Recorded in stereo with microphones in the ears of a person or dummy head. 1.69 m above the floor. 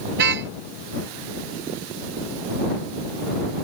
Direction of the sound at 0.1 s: 65° right (ahead or behind).